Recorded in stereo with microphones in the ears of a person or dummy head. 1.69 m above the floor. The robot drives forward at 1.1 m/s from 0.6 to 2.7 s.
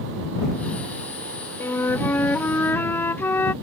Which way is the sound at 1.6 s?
10° left (ahead or behind).